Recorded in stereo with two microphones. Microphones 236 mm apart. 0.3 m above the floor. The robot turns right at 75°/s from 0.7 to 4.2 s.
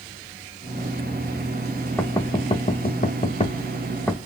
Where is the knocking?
10° left (ahead or behind), 0.6 m; by 4.2 s centre (ahead or behind), 0.6 m.